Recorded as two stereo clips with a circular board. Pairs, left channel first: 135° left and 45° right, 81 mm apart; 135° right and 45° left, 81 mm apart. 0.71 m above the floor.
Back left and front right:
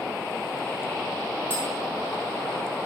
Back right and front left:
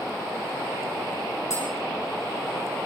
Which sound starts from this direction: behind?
Tapping, at 1.5 s.